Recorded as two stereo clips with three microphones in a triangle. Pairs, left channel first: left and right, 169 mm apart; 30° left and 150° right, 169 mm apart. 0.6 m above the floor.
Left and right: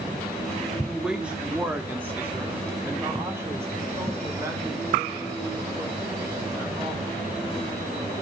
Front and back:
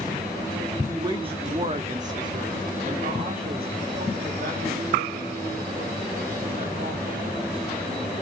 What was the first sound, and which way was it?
A woman speaking, 170° right.